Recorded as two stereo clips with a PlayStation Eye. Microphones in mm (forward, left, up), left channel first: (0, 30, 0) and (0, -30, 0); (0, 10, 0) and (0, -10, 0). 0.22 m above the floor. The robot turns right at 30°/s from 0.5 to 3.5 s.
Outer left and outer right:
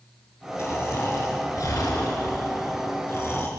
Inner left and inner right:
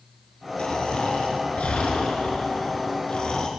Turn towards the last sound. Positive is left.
turn(degrees=135)